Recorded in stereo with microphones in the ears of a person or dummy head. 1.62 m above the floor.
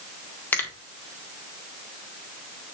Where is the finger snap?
10° left (ahead or behind), 1.4 m.